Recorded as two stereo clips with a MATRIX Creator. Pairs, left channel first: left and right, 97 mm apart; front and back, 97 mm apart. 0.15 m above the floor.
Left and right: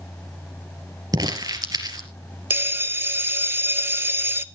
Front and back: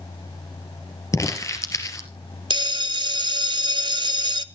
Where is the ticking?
No ticking in this recording.